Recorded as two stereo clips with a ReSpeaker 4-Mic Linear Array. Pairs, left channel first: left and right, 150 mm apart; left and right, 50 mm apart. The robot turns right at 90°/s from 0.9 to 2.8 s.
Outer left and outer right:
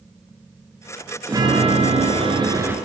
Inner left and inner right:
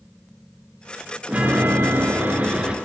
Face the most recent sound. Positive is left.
turn(degrees=-15)